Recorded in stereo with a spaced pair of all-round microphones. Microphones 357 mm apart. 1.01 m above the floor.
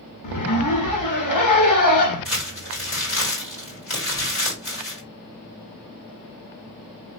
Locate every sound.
0.2 s a zipper: 60° left (ahead or behind), 0.9 m
2.2 s crumpling: 50° left (ahead or behind), 2.5 m